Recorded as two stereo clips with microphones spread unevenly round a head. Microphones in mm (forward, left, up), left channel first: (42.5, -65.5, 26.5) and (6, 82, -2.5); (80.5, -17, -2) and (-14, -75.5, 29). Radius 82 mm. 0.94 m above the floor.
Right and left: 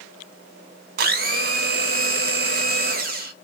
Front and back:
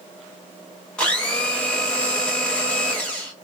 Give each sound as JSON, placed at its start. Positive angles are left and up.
{"t": 1.0, "sound": "a blender", "azimuth_deg": 110, "distance_m": 0.8}